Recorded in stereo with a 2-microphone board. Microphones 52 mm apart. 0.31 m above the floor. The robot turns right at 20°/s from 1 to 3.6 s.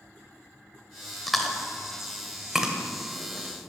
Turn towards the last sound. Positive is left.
turn(degrees=-20)  # may be behind; listen again after turning